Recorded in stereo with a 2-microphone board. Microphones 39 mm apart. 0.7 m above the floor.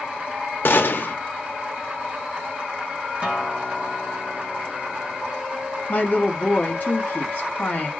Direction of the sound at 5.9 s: 40° left (ahead or behind).